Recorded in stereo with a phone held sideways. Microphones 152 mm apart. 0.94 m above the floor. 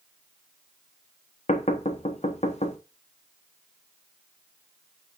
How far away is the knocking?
About 1.0 m.